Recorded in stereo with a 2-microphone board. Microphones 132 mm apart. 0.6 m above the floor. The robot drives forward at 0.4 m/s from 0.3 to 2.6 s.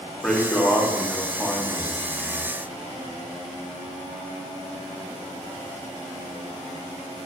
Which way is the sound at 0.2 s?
5° left (ahead or behind).